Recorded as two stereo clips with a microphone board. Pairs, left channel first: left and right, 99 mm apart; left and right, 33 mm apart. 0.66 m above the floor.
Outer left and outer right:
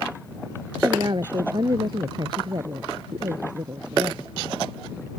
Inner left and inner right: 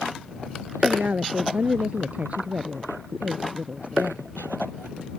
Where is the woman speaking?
45° right (ahead or behind).